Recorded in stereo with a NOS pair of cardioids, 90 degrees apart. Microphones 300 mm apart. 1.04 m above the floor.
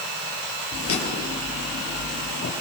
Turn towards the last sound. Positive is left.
turn(degrees=50)